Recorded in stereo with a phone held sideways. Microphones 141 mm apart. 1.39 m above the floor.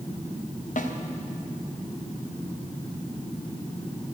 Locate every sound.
0.8 s a snare drum: 65° left (ahead or behind), 1.1 m